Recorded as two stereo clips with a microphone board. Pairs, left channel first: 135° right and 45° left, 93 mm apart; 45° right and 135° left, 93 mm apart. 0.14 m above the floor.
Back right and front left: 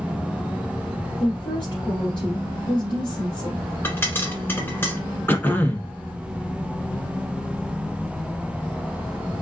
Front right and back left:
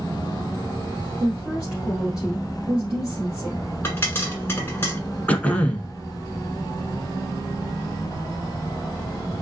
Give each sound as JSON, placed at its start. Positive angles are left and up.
{"t": 1.2, "sound": "a woman speaking", "azimuth_deg": -145, "distance_m": 1.9}
{"t": 3.8, "sound": "a pop", "azimuth_deg": -90, "distance_m": 1.5}
{"t": 5.3, "sound": "throat clearing", "azimuth_deg": -100, "distance_m": 0.7}